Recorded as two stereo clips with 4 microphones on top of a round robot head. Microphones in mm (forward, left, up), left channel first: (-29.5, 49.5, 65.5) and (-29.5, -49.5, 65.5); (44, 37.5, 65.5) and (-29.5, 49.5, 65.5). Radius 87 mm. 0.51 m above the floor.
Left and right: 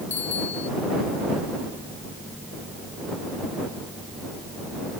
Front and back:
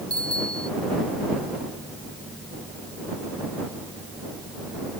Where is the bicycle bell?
70° left.